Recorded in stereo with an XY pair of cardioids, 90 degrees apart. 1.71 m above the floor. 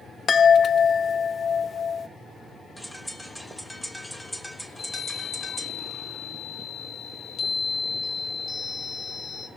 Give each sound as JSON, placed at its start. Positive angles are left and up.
{"t": 0.3, "sound": "a chime", "azimuth_deg": 45, "distance_m": 0.6}
{"t": 2.8, "sound": "a bird", "azimuth_deg": 0, "distance_m": 1.5}
{"t": 4.7, "sound": "a chime", "azimuth_deg": 60, "distance_m": 3.0}